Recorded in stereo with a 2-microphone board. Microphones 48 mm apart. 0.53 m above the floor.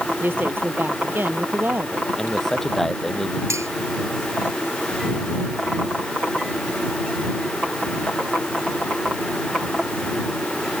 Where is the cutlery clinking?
85° right.